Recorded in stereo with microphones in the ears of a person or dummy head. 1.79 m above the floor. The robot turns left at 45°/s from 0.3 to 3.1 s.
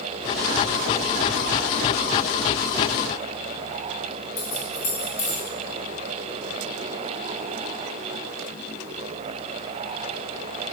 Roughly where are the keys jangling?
Left.